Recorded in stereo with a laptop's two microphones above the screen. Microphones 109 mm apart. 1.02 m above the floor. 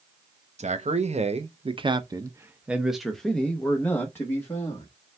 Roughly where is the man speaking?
Right.